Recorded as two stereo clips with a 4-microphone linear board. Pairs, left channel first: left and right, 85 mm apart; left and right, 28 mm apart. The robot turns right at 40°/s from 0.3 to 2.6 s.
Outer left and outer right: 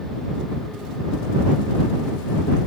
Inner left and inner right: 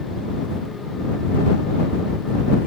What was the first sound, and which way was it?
Only background noise.